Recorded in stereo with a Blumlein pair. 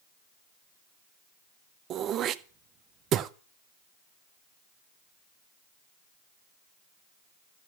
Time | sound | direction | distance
1.9 | throat clearing | 30° right | 0.8 m